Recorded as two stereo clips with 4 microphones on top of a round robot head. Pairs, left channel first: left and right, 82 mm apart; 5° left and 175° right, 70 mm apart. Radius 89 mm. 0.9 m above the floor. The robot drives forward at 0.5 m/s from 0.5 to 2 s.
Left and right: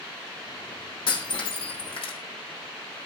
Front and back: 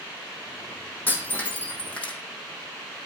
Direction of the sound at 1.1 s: 70° left.